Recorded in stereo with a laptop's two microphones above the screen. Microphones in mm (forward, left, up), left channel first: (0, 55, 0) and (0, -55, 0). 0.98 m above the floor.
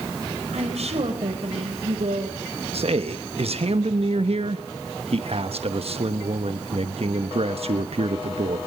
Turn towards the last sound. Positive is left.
turn(degrees=-65)  # may be behind; listen again after turning